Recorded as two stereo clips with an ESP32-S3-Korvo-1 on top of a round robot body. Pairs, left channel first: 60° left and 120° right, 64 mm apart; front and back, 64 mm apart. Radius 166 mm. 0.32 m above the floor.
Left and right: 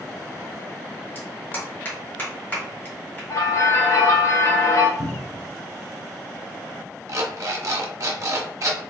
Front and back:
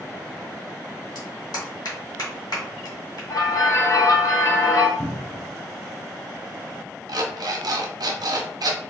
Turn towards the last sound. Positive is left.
turn(degrees=-160)